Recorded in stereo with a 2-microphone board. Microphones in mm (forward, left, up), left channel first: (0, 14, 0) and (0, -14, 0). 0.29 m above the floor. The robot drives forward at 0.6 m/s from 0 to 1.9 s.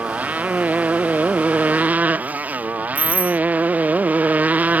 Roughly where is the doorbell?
Right.